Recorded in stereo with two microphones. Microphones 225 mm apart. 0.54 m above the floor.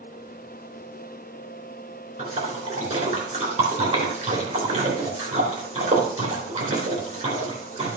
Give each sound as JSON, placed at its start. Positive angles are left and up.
{"t": 2.2, "sound": "a splash", "side_deg": -30, "distance_m": 3.0}